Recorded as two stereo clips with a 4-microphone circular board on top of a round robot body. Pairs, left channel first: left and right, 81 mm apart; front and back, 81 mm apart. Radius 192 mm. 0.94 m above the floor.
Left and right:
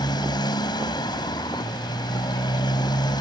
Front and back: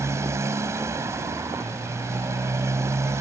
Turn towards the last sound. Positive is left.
turn(degrees=125)